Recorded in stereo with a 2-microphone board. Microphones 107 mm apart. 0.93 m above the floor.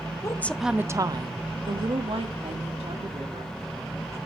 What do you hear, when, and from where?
0.2 s a woman speaking: 30° left (ahead or behind), 0.5 m; by 4.2 s 75° right (ahead or behind), 3 m